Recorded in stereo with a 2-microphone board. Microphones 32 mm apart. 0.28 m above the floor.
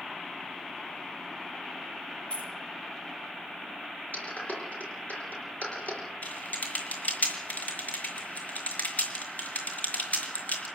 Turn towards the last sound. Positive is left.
turn(degrees=55)  # may be behind; listen again after turning